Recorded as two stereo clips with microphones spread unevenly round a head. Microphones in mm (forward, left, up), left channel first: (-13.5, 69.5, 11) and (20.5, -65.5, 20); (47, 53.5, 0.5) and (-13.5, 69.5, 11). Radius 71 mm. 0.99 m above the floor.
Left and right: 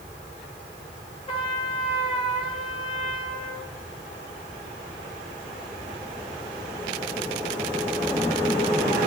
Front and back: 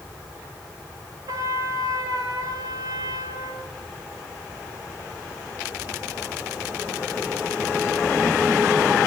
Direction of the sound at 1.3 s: 165° left.